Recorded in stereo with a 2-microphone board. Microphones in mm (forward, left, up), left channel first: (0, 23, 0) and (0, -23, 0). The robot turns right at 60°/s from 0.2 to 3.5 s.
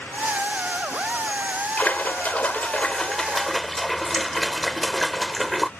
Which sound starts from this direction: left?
A splash, at 1.8 s.